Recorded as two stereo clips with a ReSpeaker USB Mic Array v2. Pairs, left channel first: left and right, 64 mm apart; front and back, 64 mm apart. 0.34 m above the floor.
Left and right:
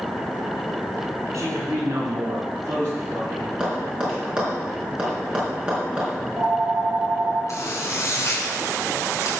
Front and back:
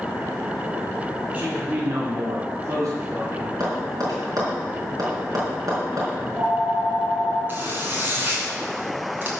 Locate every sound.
1.3 s a man speaking: 120° right, 3.5 m; by 3.5 s 150° right, 5 m
3.6 s tapping: 165° right, 4.5 m
6.2 s a phone ringing: 125° right, 3 m
7.5 s a zipper: 125° left, 3.5 m